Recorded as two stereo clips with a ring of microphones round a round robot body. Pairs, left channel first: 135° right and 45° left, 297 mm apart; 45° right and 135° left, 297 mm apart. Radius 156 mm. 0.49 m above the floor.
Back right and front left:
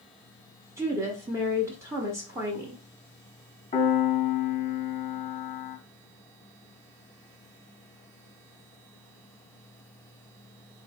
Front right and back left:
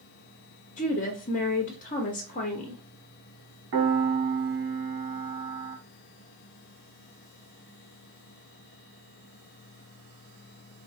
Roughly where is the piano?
Behind.